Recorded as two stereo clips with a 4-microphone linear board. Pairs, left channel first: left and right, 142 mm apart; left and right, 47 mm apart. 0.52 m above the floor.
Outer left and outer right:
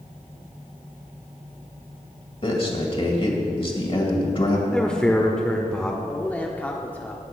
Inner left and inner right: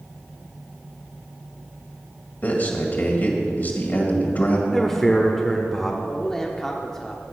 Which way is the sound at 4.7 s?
5° left (ahead or behind).